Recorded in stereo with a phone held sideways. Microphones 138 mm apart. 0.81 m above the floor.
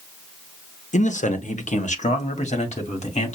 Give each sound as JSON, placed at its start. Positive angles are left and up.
{"t": 0.9, "sound": "a man speaking", "side_deg": 60, "distance_m": 0.7}